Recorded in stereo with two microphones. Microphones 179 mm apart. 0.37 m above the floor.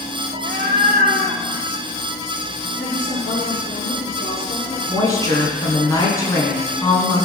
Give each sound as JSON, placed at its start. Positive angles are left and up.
{"t": 0.3, "sound": "a cat meowing", "side_deg": -50, "distance_m": 1.2}
{"t": 2.8, "sound": "a woman speaking", "side_deg": 55, "distance_m": 7.0}
{"t": 4.9, "sound": "a woman speaking", "side_deg": 15, "distance_m": 4.0}